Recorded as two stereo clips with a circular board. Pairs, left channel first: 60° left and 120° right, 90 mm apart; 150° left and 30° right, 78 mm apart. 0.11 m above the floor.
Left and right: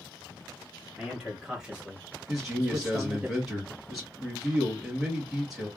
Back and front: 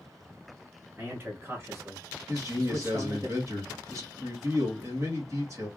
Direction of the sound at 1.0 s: 40° right.